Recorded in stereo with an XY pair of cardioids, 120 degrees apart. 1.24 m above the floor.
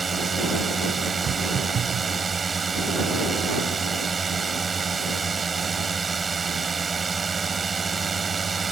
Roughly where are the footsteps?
Ahead right.